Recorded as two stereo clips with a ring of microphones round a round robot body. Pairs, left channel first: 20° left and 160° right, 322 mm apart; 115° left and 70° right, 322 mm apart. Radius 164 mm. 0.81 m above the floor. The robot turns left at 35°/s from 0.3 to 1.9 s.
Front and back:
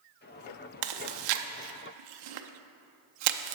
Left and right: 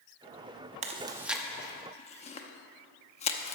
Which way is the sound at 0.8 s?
140° right.